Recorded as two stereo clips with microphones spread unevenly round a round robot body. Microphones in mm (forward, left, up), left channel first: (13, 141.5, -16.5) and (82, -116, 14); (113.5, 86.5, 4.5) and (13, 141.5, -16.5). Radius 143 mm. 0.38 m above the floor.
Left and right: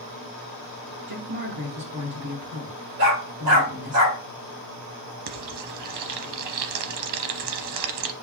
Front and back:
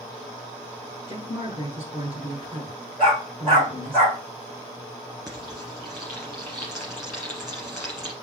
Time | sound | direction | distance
1.1 | a woman speaking | 130° right | 3.5 m
3.0 | a dog barking | 115° right | 3.5 m
5.3 | frying | 110° right | 0.8 m